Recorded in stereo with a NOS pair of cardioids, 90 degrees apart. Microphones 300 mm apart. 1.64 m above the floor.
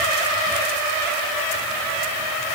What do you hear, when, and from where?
Only background noise.